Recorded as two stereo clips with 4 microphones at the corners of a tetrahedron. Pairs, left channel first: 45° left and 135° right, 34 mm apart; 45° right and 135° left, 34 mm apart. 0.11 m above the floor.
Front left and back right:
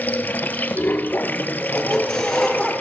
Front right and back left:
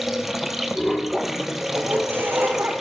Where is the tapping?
I don't hear tapping.